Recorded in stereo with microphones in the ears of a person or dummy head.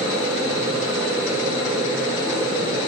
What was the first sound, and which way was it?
A fan, 30° right (ahead or behind).